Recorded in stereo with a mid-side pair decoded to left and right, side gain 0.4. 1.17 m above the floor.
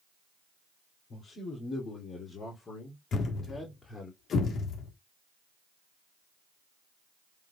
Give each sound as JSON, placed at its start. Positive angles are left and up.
{"t": 1.1, "sound": "a man speaking", "azimuth_deg": 70, "distance_m": 3.0}
{"t": 3.1, "sound": "a thud", "azimuth_deg": 65, "distance_m": 1.4}